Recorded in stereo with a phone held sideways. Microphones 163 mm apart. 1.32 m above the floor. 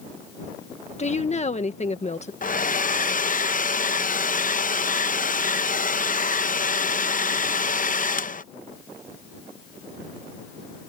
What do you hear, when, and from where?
1.0 s a woman speaking: 40° left (ahead or behind)
2.4 s a hair dryer: 50° left (ahead or behind)